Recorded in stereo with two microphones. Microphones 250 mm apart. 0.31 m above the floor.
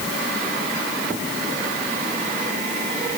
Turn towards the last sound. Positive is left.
No sound to turn to.